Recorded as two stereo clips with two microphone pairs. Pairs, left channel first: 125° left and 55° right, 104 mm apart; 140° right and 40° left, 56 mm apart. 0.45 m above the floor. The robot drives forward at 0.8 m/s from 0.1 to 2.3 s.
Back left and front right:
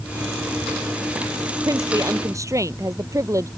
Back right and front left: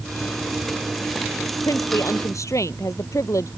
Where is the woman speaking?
110° right; by 3.5 s 115° right.